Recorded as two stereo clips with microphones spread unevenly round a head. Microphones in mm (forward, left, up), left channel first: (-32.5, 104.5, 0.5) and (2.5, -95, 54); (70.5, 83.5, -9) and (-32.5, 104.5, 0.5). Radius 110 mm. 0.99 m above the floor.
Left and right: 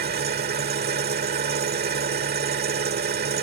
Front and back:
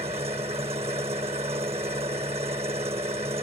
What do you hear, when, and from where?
0.0 s an engine running: 125° right